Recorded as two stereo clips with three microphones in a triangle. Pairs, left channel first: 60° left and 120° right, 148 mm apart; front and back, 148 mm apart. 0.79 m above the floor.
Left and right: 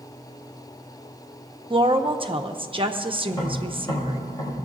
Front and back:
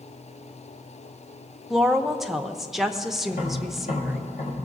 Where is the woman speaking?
95° right, 0.7 m.